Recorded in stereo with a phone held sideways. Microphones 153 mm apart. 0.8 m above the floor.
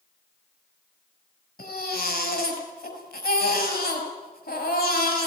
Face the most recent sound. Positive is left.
turn(degrees=80)